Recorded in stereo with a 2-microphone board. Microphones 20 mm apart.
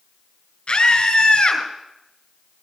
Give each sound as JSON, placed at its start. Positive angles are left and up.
{"t": 0.7, "sound": "a scream", "side_deg": 55, "distance_m": 3.5}